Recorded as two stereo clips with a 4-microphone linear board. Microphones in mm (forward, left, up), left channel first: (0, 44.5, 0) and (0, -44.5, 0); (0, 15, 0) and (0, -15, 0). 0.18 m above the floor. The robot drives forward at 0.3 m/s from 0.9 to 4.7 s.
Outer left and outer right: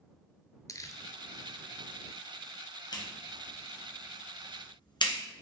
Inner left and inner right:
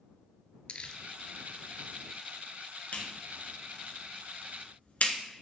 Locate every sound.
0.7 s crumpling: 40° left (ahead or behind), 0.7 m
2.9 s a clap: 50° left (ahead or behind), 1.9 m; by 5.2 s 60° left (ahead or behind), 1.7 m